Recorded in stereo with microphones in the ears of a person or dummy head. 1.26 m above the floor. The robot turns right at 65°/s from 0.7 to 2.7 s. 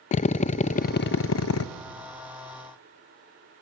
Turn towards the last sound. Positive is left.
turn(degrees=170)